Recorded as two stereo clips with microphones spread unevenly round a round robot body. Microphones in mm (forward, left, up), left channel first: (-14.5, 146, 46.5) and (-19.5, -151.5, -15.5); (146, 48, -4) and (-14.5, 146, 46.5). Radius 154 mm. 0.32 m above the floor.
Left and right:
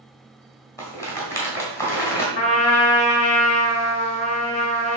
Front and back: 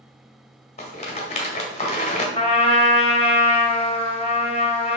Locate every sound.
0.8 s a rattle: 5° left, 2 m
2.4 s a trumpet: 15° left, 3 m